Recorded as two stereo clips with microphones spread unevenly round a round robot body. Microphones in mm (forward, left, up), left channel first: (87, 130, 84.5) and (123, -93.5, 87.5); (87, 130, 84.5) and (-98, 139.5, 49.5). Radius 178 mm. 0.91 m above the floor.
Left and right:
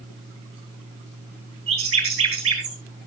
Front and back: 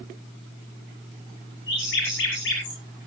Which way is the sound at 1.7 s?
60° right.